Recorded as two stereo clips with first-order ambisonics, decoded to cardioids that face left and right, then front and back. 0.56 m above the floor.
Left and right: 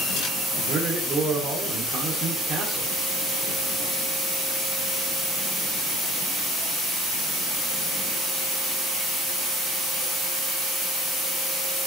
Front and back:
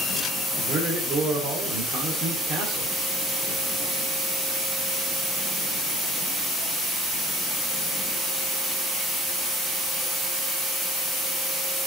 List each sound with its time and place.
0.6 s a man speaking: 140° right, 1.7 m